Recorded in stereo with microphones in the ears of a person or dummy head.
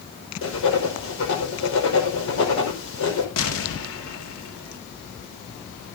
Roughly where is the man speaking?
I don't hear a man speaking.